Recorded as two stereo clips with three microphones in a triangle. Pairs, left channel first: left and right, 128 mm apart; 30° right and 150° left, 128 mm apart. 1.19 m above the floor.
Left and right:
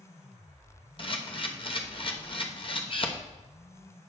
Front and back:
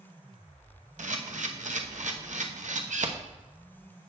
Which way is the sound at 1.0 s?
135° left.